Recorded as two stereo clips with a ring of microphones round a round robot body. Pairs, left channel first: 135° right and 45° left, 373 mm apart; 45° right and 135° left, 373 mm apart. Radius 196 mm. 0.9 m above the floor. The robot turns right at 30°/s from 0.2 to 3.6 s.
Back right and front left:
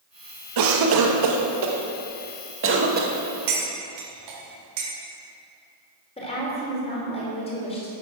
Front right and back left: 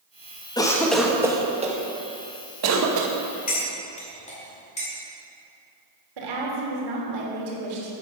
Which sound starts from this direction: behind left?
A woman speaking, at 6.2 s.